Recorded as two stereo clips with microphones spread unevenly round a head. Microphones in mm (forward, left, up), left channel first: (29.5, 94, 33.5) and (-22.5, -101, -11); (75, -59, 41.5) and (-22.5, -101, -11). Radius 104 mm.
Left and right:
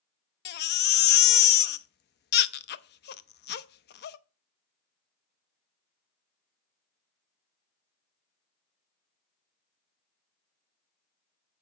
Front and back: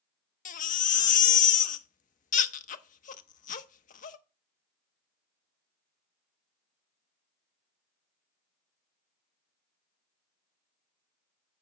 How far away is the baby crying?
About 0.6 m.